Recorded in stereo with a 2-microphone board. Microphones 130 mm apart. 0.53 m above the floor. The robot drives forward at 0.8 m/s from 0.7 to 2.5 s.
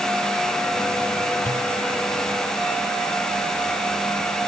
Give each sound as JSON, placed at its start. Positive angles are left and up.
{"t": 1.4, "sound": "a pop", "side_deg": 85}